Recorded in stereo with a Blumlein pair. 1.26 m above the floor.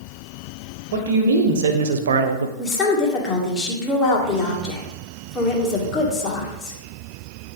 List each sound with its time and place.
0.9 s a man speaking: 60° right, 1.4 m; by 2.5 s 70° right, 0.5 m
2.6 s a woman speaking: 20° left, 1.7 m